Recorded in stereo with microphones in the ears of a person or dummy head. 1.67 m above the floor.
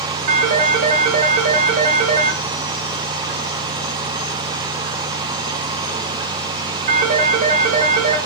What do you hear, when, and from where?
0.3 s a phone ringing: 45° right (ahead or behind), 1.2 m